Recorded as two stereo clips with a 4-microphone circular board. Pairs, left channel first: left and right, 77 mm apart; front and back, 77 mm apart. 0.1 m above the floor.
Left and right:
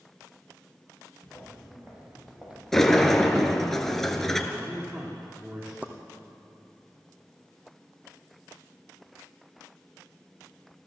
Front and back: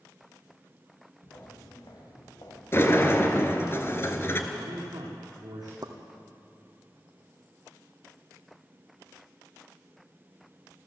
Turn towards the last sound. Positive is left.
turn(degrees=-155)